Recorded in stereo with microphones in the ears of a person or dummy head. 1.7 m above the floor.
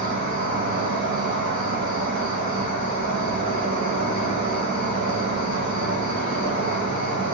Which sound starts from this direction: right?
An insect, at 0.0 s.